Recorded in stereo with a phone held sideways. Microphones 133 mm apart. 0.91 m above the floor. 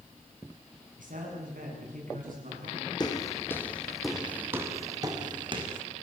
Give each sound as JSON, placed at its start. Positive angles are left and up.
{"t": 1.0, "sound": "a man speaking", "side_deg": -85, "distance_m": 8.0}
{"t": 3.0, "sound": "footsteps", "side_deg": 30, "distance_m": 2.5}